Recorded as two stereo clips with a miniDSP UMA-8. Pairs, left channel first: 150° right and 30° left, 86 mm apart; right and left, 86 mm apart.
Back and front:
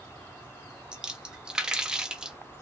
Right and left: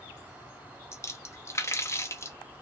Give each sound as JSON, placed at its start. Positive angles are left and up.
{"t": 0.9, "sound": "a splash", "azimuth_deg": -50, "distance_m": 0.5}